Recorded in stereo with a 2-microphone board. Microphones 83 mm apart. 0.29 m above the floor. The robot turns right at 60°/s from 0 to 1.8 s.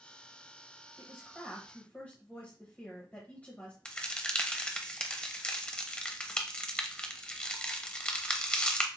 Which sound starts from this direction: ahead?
A woman speaking, at 1.0 s.